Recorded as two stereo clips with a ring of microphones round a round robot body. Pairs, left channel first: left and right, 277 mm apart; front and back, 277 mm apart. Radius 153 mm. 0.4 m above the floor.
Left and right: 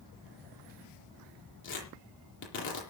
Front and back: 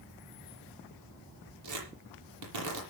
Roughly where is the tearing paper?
Behind left.